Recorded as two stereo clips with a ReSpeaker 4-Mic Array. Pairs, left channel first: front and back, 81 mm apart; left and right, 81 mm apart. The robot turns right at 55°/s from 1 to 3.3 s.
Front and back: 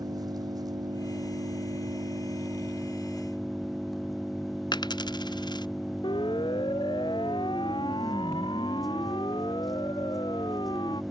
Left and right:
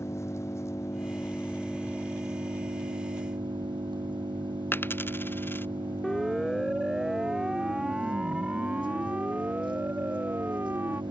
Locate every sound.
0.0 s an engine running: 145° left; by 11.1 s 90° right
4.7 s a dropped coin: 25° left
6.0 s a siren: 5° left; by 11.0 s 25° right